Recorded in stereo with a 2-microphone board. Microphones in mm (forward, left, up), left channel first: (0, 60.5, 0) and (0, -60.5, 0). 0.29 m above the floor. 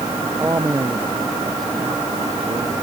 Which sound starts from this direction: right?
A man speaking, at 0.2 s.